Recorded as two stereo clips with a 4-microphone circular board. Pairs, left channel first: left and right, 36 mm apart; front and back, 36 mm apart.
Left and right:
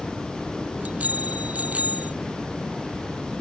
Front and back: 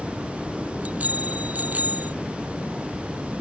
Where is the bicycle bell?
135° right; by 2.1 s 140° right.